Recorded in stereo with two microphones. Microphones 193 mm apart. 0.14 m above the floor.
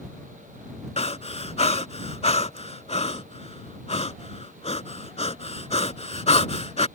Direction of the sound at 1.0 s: 35° left (ahead or behind).